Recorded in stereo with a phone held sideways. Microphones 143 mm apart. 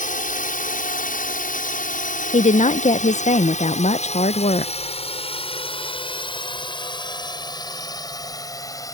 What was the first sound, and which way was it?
A drone, 70° left (ahead or behind).